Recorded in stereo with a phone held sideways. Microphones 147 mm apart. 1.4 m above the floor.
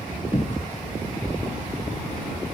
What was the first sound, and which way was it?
A cupboard door, 30° left (ahead or behind).